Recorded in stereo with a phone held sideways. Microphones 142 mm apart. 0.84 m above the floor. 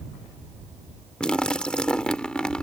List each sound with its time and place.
1.2 s a splash: 5° left (ahead or behind)